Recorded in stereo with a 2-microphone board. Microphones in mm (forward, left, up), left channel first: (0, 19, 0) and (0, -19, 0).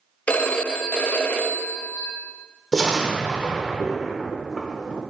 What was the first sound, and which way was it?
A phone ringing, 40° left (ahead or behind).